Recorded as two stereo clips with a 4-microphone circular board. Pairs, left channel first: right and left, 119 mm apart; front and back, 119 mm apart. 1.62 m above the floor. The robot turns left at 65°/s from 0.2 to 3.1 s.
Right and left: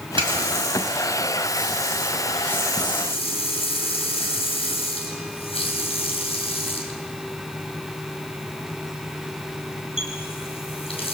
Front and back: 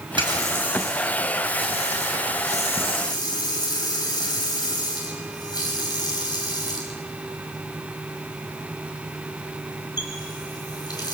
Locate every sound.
0.2 s a running tap: 135° left, 6 m; by 11.1 s 55° right, 6 m